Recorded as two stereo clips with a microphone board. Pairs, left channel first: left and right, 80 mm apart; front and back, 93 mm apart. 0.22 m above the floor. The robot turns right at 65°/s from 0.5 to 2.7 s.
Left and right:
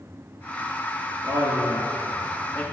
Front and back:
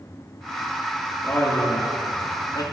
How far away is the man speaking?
About 3.5 m.